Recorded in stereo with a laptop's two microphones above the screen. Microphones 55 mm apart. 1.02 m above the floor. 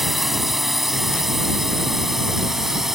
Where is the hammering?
I don't hear hammering.